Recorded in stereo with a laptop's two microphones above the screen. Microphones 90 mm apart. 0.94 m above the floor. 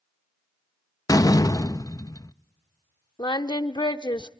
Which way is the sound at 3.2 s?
55° left (ahead or behind).